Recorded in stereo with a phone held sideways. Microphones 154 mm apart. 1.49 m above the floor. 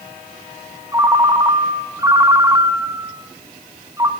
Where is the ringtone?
20° right (ahead or behind), 0.9 m.